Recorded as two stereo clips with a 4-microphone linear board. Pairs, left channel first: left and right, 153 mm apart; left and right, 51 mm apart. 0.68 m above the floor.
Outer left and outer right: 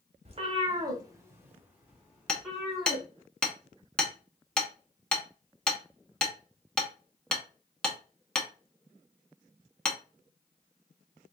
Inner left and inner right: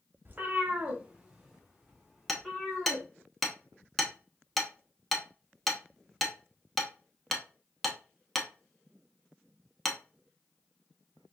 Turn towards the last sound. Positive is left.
turn(degrees=5)  # may be behind; listen again after turning